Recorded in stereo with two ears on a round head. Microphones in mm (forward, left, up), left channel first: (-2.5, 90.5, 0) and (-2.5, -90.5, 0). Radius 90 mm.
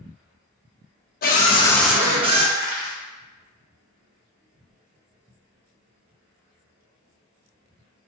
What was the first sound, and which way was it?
A scream, 45° left (ahead or behind).